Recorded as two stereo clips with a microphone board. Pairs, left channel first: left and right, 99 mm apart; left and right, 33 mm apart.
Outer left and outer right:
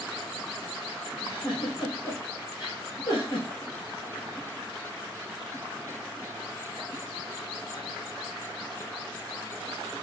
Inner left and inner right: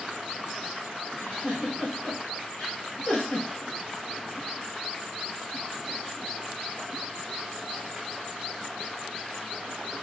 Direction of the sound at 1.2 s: 55° left (ahead or behind).